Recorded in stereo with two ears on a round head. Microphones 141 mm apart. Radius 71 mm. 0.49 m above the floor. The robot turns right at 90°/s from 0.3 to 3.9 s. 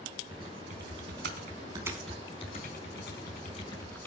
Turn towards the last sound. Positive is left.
turn(degrees=15)  # may be behind; listen again after turning